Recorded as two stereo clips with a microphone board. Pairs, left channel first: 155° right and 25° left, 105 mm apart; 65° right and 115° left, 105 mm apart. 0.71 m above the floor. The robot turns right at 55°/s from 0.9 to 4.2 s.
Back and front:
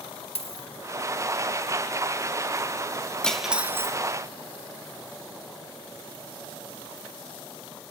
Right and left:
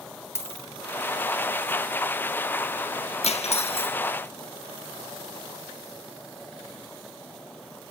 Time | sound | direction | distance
0.3 | a dropped coin | 135° right | 1.1 m
3.2 | cutlery clinking | 75° right | 0.6 m